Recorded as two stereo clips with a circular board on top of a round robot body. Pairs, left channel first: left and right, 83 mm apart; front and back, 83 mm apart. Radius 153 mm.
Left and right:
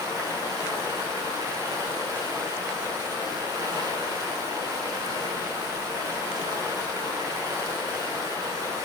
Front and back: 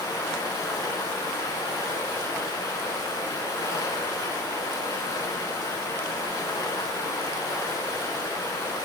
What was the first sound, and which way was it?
Running water, 50° right.